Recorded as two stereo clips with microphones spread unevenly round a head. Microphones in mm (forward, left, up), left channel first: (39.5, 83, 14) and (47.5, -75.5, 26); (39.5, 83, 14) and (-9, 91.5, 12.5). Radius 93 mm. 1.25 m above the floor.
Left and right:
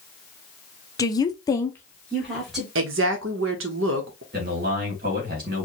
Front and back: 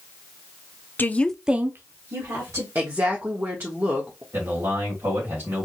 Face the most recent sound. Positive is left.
turn(degrees=-130)